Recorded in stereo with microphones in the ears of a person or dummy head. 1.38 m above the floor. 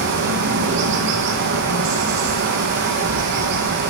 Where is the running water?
60° right (ahead or behind), 1.0 m.